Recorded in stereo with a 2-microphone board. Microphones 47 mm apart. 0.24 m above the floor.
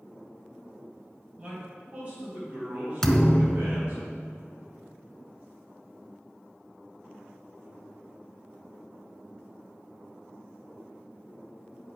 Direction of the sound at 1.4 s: 30° right (ahead or behind).